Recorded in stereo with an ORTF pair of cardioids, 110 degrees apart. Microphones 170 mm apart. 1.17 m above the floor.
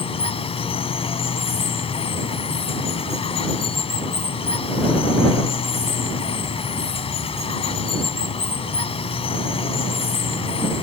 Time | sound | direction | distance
0.0 | running water | 35° left | ?